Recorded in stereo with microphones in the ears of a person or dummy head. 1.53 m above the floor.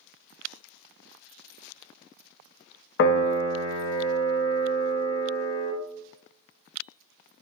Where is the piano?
60° left (ahead or behind), 0.5 m.